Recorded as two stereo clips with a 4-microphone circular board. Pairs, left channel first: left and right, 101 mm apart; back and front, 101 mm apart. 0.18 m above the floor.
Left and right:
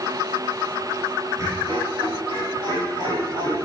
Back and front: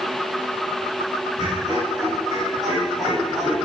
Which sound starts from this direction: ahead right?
Laughter, at 1.4 s.